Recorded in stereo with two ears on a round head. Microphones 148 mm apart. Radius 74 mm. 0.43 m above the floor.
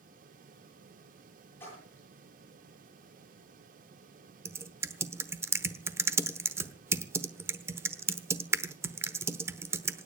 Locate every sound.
1.6 s a splash: 15° left (ahead or behind), 10 m
4.5 s typing on a keyboard: 15° right (ahead or behind), 0.9 m